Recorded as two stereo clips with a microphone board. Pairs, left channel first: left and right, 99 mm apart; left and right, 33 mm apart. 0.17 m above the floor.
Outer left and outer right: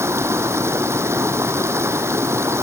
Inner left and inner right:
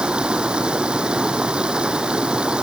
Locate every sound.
0.0 s running water: 25° right (ahead or behind)